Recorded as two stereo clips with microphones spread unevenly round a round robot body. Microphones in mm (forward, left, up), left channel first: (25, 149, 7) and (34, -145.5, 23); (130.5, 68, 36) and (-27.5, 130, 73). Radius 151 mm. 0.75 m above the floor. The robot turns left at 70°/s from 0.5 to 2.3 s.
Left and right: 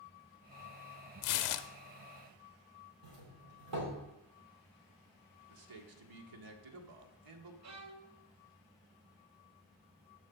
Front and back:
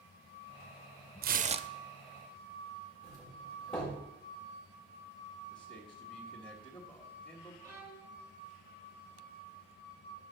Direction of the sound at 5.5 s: 85° right.